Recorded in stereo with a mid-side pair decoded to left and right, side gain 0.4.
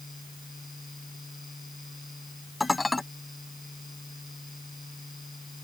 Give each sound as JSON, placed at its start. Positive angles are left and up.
{"t": 0.0, "sound": "a fan", "azimuth_deg": 10}
{"t": 2.6, "sound": "dishes clattering", "azimuth_deg": 15}